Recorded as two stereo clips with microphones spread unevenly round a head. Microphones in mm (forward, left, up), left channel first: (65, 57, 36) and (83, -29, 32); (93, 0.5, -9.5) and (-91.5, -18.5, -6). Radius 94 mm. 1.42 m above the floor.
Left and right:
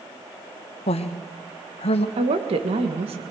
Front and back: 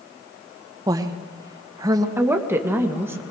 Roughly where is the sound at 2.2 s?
Right.